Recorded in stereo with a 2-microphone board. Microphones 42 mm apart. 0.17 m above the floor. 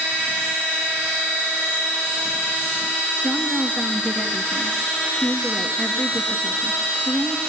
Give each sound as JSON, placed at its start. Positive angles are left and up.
{"t": 3.2, "sound": "a woman speaking", "side_deg": 40, "distance_m": 3.0}